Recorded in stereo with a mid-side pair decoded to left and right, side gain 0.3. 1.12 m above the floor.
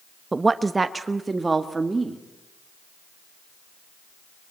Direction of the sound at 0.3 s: 35° right.